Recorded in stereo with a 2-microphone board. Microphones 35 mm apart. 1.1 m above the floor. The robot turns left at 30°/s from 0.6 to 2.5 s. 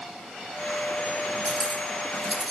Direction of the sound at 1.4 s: 10° right (ahead or behind).